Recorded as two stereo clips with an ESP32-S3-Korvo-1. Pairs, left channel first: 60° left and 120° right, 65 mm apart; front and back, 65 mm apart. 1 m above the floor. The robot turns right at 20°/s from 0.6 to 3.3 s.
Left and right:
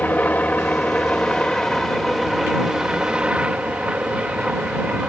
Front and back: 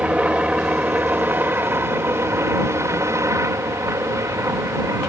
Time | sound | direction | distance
0.0 | a helicopter | 115° left | ?